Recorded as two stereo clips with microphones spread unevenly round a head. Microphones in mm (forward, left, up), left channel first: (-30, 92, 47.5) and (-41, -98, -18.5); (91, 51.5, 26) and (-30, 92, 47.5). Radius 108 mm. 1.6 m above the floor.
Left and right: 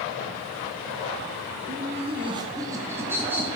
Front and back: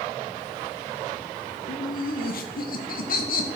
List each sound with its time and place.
1.7 s laughter: 45° right, 1.1 m; by 3.5 s 10° right, 2.5 m